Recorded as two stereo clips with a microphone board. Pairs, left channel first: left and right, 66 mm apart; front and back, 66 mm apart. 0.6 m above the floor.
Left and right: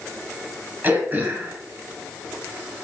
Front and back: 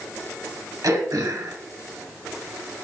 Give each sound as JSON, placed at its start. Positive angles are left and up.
{"t": 0.8, "sound": "throat clearing", "azimuth_deg": -150, "distance_m": 1.7}